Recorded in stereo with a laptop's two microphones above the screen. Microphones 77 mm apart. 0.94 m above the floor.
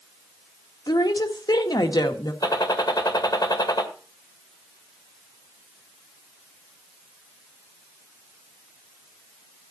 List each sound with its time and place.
0.9 s a woman speaking: 65° left (ahead or behind), 1.6 m
2.4 s a gunshot: 60° left (ahead or behind), 1.7 m